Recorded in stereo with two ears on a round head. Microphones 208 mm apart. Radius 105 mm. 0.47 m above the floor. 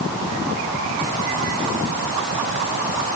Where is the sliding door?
No sliding door in this recording.